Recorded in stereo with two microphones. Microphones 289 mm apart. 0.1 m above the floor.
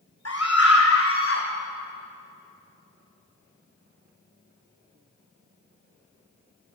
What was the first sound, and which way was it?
A scream, 55° left (ahead or behind).